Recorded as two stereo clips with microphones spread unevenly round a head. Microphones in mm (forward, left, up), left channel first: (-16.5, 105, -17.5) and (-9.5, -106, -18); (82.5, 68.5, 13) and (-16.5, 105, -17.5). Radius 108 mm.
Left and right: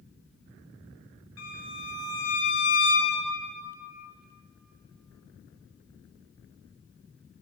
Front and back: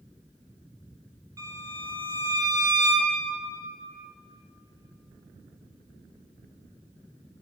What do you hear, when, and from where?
1.4 s a violin: 100° left, 5.5 m